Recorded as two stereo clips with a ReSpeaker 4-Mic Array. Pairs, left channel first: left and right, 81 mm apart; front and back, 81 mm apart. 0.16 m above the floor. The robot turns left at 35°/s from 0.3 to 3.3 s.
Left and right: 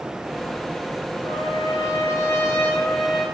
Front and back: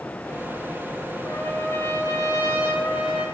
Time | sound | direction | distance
1.2 | a trumpet | 70° left | 4.5 m